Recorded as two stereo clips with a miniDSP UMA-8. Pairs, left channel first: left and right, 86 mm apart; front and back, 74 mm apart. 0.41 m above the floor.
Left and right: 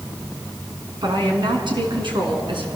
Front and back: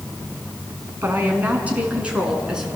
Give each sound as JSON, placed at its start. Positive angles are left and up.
{"t": 1.0, "sound": "a woman speaking", "azimuth_deg": -115, "distance_m": 3.5}